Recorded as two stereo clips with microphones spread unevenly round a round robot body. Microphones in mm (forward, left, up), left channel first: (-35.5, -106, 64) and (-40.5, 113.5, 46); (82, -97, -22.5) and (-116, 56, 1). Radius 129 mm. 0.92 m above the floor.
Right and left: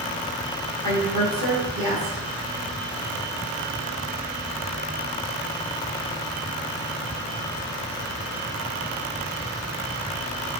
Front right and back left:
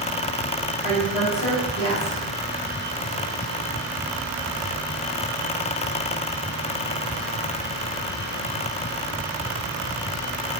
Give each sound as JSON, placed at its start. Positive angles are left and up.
{"t": 0.8, "sound": "a woman speaking", "azimuth_deg": 40, "distance_m": 1.4}